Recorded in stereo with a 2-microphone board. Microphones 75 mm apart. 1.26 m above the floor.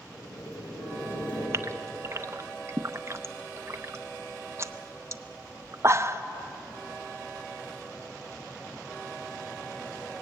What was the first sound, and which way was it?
Boiling, 75° left (ahead or behind).